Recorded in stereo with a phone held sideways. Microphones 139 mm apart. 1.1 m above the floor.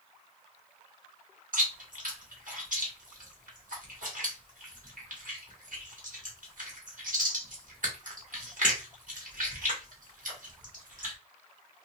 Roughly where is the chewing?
Right.